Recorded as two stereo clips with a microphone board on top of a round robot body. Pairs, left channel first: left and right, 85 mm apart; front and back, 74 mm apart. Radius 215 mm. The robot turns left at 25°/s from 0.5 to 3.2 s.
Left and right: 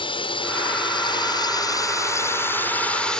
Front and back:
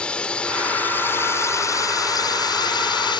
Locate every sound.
0.0 s a drone: 75° left; by 3.2 s 10° left